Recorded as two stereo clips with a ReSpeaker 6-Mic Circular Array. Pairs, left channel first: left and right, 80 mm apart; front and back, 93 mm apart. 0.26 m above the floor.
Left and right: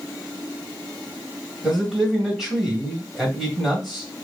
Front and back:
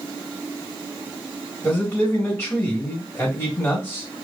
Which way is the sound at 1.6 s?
10° right.